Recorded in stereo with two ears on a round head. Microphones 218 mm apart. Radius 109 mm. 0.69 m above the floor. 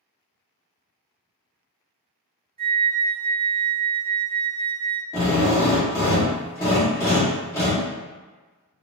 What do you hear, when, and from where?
2.6 s a flute: 25° right (ahead or behind), 0.5 m
5.1 s a drill: 15° left (ahead or behind), 0.9 m